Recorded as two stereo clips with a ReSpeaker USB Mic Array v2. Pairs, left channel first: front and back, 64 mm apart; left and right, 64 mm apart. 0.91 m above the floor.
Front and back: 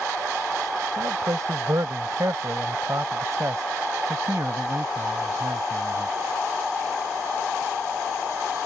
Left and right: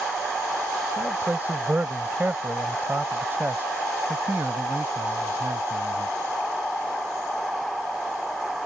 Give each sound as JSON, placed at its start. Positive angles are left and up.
{"t": 1.0, "sound": "a man speaking", "azimuth_deg": -150}